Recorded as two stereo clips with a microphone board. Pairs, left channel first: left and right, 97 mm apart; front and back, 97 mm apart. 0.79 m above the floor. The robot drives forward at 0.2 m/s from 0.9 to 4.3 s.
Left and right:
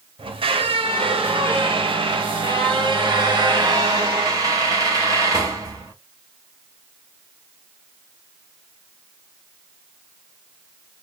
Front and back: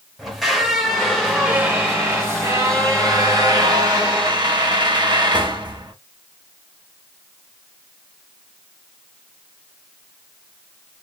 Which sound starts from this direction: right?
A squeak, at 0.2 s.